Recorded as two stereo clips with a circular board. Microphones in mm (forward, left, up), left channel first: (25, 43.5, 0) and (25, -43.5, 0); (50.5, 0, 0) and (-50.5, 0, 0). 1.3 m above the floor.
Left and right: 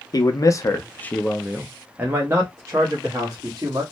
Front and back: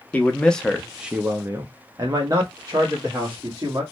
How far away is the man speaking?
About 0.7 m.